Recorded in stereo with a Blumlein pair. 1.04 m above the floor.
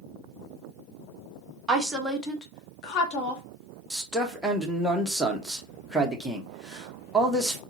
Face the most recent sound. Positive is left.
turn(degrees=0)